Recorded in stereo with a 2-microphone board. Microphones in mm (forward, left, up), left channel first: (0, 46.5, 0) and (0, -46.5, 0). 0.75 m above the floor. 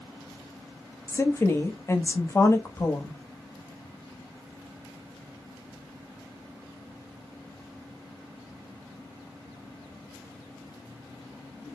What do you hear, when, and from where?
1.1 s a woman speaking: 30° left (ahead or behind), 0.7 m